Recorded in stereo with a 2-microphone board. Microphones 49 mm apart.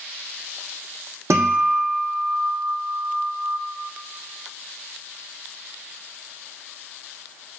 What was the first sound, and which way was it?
A guitar, 80° right.